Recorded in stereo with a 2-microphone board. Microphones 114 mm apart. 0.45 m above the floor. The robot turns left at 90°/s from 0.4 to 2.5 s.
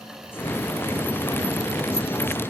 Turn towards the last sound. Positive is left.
No sound to turn to.